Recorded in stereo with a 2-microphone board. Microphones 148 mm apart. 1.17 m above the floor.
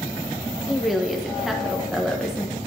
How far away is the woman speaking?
About 1.1 m.